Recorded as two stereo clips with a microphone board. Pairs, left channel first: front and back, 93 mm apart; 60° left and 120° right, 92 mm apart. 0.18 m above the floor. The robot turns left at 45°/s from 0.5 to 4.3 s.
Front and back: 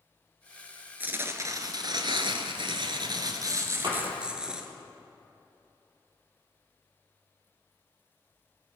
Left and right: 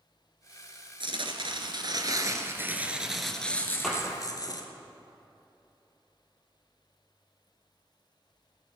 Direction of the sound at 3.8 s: 145° left.